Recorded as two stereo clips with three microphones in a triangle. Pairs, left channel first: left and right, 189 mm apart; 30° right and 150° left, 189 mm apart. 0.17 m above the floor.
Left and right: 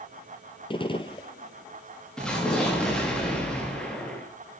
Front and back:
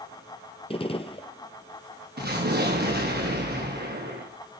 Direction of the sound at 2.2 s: 175° left.